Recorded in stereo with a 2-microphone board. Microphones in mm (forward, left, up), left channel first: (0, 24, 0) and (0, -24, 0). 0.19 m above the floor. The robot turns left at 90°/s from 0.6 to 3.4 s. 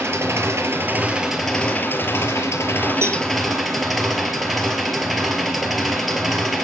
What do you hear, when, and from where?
0.0 s an engine running: 110° right, 2.5 m; by 6.6 s 5° right, 2.5 m
3.0 s a cowbell: 60° right (ahead or behind), 1.5 m; by 3.2 s 45° right (ahead or behind), 1.5 m